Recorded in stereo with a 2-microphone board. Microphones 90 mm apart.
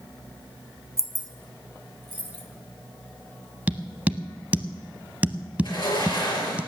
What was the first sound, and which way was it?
Keys jangling, 30° right (ahead or behind).